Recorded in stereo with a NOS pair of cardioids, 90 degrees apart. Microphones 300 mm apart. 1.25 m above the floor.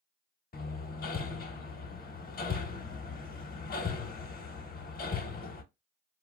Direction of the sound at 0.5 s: 30° left.